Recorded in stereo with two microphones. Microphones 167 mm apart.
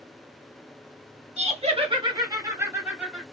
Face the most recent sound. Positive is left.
turn(degrees=-5)  # may be behind; listen again after turning